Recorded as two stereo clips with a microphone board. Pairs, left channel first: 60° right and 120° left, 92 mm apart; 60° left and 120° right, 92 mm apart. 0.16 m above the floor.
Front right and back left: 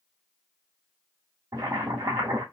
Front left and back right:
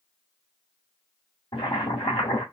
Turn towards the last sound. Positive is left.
turn(degrees=65)